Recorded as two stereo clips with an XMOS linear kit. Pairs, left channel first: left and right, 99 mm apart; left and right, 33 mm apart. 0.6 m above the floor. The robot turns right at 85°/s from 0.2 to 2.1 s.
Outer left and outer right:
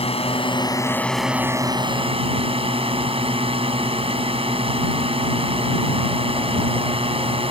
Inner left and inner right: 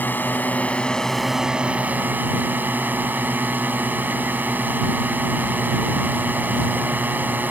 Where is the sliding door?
No sliding door in this recording.